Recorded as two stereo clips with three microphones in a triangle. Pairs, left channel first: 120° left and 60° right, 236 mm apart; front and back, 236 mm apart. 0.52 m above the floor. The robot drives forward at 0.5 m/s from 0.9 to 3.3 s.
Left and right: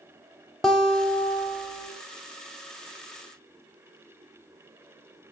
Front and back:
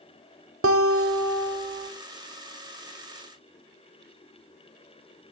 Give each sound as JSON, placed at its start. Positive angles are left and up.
{"t": 0.6, "sound": "a guitar", "azimuth_deg": -150, "distance_m": 0.7}